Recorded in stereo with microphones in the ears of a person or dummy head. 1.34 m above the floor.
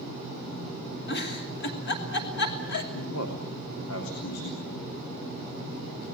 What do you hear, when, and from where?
1.1 s a giggle: 60° left (ahead or behind), 2.5 m
2.9 s a man speaking: 90° left, 3.5 m